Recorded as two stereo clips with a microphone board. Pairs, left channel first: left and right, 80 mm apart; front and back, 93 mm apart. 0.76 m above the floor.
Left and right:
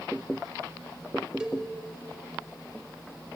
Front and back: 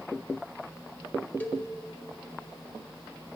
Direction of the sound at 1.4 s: 30° right.